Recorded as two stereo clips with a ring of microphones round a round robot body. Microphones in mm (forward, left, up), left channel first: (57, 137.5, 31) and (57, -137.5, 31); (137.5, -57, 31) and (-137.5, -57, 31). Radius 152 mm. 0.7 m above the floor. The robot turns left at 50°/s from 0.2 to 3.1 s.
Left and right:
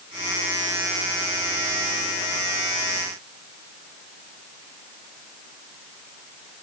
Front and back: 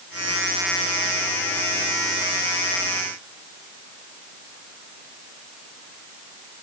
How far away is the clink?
I don't hear a clink.